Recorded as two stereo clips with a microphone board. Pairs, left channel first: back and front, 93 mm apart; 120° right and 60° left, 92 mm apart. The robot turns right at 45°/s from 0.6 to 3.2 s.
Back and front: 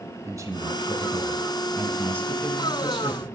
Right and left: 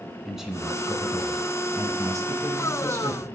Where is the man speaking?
20° right, 1.2 m; by 3.3 s 95° left, 1.2 m.